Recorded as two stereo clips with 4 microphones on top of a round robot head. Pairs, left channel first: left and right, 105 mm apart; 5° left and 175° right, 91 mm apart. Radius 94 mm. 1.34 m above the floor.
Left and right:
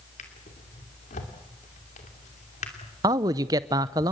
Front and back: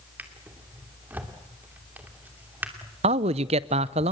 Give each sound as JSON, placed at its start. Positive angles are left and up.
{"t": 0.2, "sound": "a drawer", "azimuth_deg": 115, "distance_m": 2.5}
{"t": 3.0, "sound": "a man speaking", "azimuth_deg": -155, "distance_m": 0.6}